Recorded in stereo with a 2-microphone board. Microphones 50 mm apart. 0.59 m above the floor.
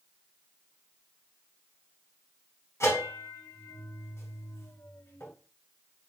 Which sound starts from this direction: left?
A bell, at 2.8 s.